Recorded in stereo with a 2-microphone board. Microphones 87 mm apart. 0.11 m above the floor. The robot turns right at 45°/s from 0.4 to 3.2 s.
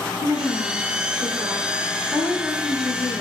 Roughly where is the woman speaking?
Right.